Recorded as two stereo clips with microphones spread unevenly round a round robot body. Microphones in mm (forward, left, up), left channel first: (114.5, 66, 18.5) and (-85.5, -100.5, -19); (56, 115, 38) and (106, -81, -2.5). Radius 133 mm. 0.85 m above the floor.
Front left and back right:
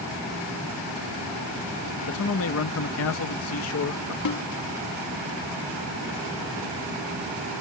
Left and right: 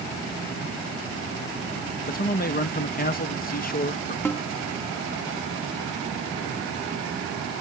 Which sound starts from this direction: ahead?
A snare drum, at 4.2 s.